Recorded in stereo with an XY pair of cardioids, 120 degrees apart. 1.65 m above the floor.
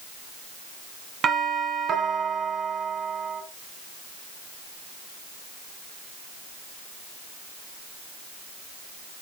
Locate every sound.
1.2 s a doorbell: 45° right, 2 m